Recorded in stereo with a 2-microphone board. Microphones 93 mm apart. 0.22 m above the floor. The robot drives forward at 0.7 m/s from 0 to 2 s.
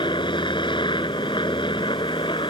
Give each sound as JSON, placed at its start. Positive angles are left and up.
{"t": 0.0, "sound": "a helicopter", "side_deg": 60}